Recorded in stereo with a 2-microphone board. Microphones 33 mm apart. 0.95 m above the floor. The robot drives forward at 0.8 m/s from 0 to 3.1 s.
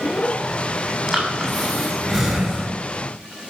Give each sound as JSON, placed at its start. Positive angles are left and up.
{"t": 1.1, "sound": "breathing", "side_deg": -15, "distance_m": 6.0}